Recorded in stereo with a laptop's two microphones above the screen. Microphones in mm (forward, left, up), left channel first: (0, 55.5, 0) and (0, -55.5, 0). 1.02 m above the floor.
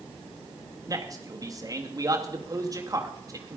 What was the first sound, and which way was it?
A man speaking, 30° right (ahead or behind).